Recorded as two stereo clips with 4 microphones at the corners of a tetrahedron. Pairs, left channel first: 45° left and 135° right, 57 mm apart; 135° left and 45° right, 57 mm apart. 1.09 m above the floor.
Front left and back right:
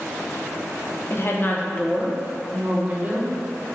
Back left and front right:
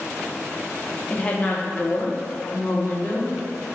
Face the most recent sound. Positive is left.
turn(degrees=165)